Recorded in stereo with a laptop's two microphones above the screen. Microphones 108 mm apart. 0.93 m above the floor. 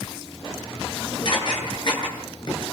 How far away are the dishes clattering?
About 8.5 m.